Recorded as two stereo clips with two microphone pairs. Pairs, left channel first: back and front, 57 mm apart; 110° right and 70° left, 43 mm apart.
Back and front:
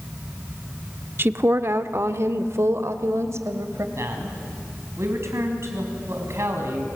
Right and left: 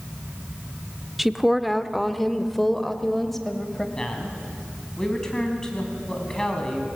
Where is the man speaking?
35° right, 4 m.